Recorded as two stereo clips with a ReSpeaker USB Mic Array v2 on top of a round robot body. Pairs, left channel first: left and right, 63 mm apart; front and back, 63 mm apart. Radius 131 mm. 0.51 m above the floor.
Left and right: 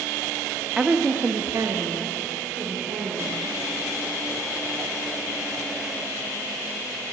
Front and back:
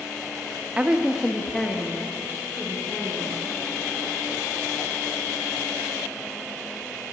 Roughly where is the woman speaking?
Behind right.